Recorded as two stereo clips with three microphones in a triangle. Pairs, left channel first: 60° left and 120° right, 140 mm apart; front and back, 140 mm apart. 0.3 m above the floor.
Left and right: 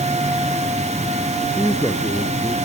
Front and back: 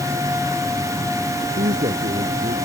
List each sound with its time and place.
1.4 s a man speaking: 155° left; by 2.6 s 140° left